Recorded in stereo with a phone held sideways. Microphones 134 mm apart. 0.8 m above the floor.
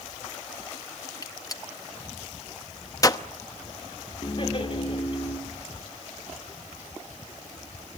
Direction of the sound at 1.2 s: 25° left (ahead or behind).